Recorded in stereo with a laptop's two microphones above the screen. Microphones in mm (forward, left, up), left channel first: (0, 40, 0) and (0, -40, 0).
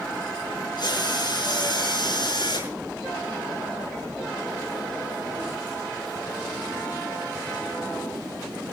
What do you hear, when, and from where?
0.8 s a drill: 65° left (ahead or behind), 6 m